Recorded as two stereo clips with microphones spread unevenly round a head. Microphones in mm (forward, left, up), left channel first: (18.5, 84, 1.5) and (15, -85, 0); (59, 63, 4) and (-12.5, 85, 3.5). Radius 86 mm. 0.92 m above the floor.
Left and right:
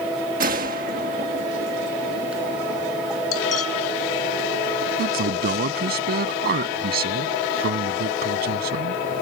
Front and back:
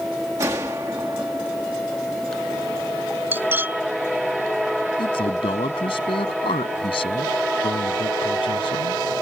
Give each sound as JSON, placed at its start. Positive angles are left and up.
{"t": 0.4, "sound": "a gunshot", "azimuth_deg": -130}
{"t": 3.3, "sound": "cutlery clinking", "azimuth_deg": 100}
{"t": 5.0, "sound": "a man speaking", "azimuth_deg": -55}